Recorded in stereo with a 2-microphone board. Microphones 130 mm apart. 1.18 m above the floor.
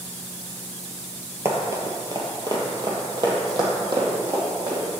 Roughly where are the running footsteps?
Right.